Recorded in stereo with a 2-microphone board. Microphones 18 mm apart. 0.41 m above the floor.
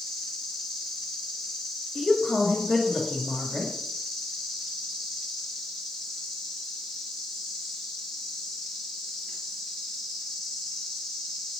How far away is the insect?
About 5 m.